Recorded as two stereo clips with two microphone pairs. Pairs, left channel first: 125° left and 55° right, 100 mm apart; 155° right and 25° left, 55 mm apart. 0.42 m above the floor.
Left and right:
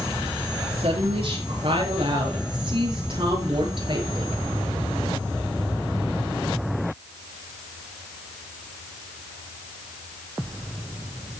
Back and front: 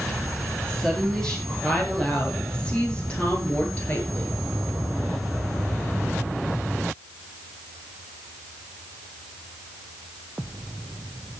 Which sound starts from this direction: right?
A woman speaking, at 0.7 s.